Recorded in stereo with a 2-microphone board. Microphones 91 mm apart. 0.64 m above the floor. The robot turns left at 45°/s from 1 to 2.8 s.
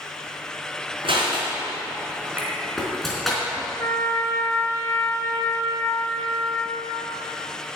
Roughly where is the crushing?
Right.